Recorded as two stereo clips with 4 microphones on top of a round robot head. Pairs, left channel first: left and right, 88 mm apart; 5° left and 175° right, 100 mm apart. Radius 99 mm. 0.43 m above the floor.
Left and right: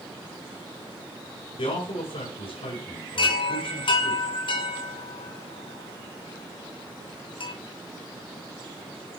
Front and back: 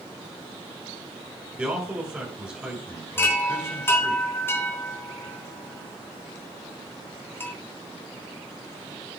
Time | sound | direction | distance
1.6 | a man speaking | 105° left | 5.5 m
3.2 | a chime | 70° left | 3.5 m